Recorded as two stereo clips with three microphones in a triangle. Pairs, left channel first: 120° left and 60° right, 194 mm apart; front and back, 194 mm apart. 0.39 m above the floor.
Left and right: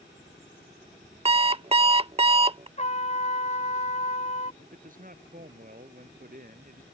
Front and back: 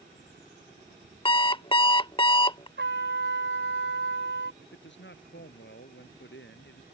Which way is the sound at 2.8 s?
175° left.